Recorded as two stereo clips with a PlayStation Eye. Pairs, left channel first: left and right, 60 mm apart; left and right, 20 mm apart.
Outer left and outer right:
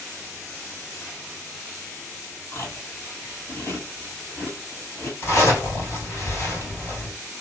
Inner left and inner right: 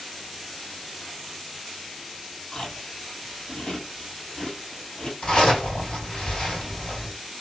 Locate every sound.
2.5 s chewing: 45° left (ahead or behind), 1.9 m
5.2 s a zipper: 45° left (ahead or behind), 2 m